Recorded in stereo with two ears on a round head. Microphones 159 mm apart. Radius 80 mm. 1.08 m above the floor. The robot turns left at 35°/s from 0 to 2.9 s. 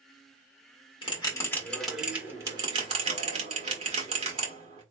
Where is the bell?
30° left (ahead or behind), 1.5 m; by 4.8 s 35° right (ahead or behind), 1.5 m.